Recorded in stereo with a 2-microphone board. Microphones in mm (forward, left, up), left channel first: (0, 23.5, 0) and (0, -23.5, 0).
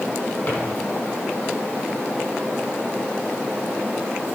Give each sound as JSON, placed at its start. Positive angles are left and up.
{"t": 0.5, "sound": "a drawer", "side_deg": 40, "distance_m": 5.0}